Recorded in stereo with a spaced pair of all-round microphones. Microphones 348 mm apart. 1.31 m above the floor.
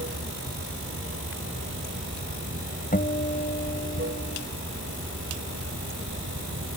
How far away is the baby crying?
I don't hear a baby crying.